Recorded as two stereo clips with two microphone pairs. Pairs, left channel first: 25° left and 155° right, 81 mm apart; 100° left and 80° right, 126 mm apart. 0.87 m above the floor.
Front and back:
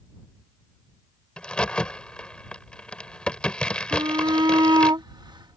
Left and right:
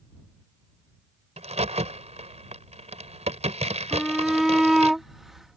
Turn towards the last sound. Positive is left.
turn(degrees=-170)